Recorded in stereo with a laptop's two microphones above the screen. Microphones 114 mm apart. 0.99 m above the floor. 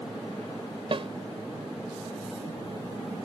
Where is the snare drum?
55° right (ahead or behind).